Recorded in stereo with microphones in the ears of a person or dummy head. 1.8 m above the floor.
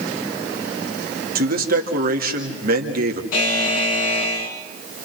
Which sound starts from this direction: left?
A buzzer, at 3.3 s.